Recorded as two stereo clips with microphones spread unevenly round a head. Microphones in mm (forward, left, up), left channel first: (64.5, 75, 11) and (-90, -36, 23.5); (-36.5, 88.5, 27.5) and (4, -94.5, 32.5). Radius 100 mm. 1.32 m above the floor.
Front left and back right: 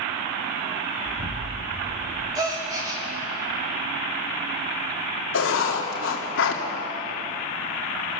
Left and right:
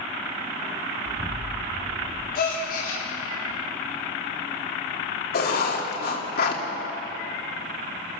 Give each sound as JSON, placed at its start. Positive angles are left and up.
{"t": 1.1, "sound": "an explosion", "azimuth_deg": -170, "distance_m": 2.5}
{"t": 2.4, "sound": "a gasp", "azimuth_deg": 145, "distance_m": 4.0}
{"t": 5.3, "sound": "writing", "azimuth_deg": 55, "distance_m": 2.5}